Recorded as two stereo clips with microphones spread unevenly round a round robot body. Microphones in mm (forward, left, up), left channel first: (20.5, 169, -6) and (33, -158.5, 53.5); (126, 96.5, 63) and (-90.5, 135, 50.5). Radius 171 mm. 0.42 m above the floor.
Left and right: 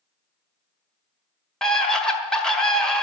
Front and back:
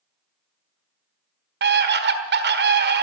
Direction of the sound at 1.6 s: 170° left.